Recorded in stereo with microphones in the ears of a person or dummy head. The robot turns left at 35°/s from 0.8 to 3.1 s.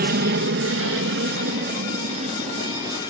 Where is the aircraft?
50° right (ahead or behind); by 3.1 s 15° right (ahead or behind).